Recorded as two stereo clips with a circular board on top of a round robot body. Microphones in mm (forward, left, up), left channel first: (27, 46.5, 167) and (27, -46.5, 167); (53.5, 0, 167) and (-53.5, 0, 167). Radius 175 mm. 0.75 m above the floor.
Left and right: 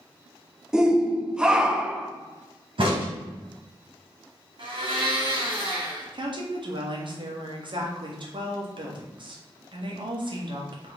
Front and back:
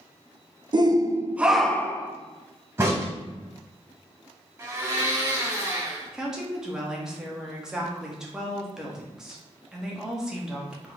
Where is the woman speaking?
95° right, 1.5 m.